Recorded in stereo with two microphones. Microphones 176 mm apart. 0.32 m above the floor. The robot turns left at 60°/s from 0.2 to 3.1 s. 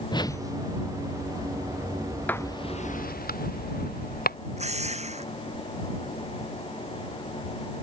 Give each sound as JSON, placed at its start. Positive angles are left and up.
{"t": 0.1, "sound": "a whoosh", "side_deg": 25}
{"t": 2.3, "sound": "writing", "side_deg": 10}
{"t": 4.6, "sound": "a drill", "side_deg": -40}